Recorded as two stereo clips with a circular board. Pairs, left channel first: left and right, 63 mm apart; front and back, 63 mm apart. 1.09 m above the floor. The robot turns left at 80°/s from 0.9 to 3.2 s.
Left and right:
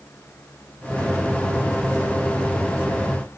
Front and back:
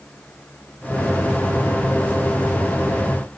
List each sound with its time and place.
Only background noise.